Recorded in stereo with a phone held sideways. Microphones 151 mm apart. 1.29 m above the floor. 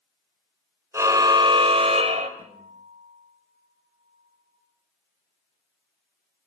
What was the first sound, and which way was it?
A car horn, 20° right (ahead or behind).